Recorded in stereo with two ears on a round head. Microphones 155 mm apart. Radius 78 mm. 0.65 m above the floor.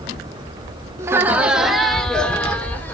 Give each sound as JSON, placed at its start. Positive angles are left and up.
{"t": 1.0, "sound": "laughter", "side_deg": -15, "distance_m": 1.0}